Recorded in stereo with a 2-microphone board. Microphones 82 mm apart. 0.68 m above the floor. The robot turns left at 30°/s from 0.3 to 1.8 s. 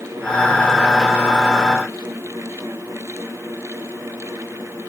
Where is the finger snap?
No finger snap in this recording.